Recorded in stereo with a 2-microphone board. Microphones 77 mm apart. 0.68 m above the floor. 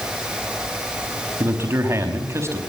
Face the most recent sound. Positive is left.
turn(degrees=-35)  # may be behind; listen again after turning